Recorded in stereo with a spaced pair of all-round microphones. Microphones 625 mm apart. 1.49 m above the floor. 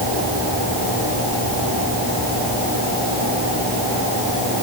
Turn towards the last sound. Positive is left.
No sound to turn to.